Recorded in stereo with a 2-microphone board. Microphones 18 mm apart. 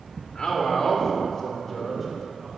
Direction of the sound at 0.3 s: 60° left (ahead or behind).